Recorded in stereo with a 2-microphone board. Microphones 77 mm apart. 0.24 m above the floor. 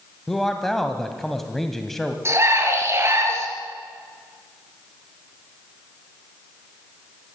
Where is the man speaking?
5° left (ahead or behind), 1.7 m.